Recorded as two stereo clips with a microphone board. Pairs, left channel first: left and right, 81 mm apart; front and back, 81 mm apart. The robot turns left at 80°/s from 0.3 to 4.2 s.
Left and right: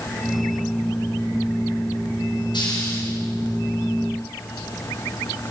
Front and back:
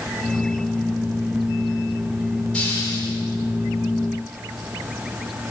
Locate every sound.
2.5 s a hiss: 80° left, 5 m; by 3.1 s 30° left, 5 m